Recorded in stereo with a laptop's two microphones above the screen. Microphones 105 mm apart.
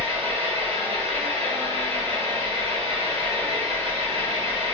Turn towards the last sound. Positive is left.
turn(degrees=-65)  # may be behind; listen again after turning